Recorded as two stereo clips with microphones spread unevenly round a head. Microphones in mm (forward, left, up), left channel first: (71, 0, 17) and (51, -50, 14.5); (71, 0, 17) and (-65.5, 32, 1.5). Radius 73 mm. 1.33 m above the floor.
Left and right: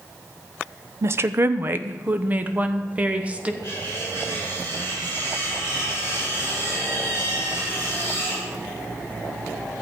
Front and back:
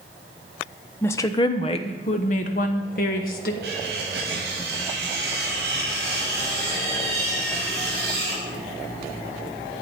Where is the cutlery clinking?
165° right, 4.5 m.